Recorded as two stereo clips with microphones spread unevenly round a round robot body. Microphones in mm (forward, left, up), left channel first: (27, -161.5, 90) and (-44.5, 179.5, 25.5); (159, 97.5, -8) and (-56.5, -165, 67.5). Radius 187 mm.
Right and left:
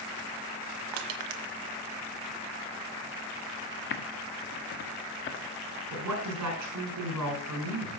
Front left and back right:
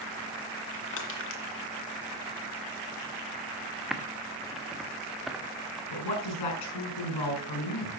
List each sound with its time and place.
0.9 s crushing: 110° left, 1.6 m
3.9 s typing on a keyboard: 25° right, 1.5 m
5.9 s a woman speaking: 65° left, 6 m